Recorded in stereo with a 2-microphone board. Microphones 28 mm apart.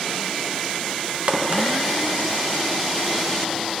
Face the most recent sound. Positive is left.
turn(degrees=-45)  # may be behind; listen again after turning